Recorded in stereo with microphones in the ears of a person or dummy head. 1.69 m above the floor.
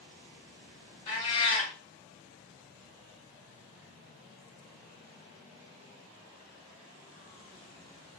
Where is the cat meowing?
30° left (ahead or behind), 2.0 m.